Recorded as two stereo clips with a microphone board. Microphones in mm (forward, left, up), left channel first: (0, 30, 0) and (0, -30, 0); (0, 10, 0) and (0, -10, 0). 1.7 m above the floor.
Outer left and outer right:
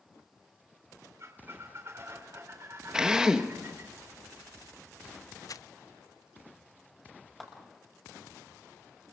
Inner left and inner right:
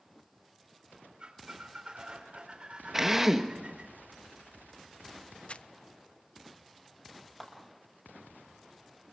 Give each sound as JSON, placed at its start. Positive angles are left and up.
{"t": 1.2, "sound": "a squeak", "side_deg": -45, "distance_m": 3.5}
{"t": 2.9, "sound": "a drill", "side_deg": -10, "distance_m": 1.6}
{"t": 5.5, "sound": "crumpling", "side_deg": 65, "distance_m": 0.5}
{"t": 7.4, "sound": "a clap", "side_deg": 0, "distance_m": 7.0}